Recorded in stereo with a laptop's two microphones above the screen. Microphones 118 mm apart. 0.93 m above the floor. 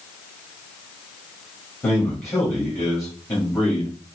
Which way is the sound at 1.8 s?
25° left (ahead or behind).